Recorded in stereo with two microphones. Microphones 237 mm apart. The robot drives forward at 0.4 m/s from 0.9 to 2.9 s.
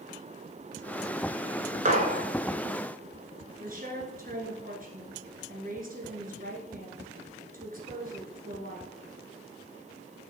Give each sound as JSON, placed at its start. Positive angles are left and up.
{"t": 1.9, "sound": "a gunshot", "side_deg": -30, "distance_m": 1.1}
{"t": 3.6, "sound": "a woman speaking", "side_deg": -35, "distance_m": 1.8}